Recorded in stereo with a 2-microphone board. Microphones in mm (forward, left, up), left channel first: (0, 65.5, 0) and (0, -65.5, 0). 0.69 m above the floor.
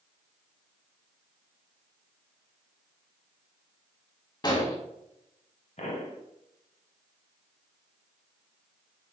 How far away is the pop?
About 1.0 m.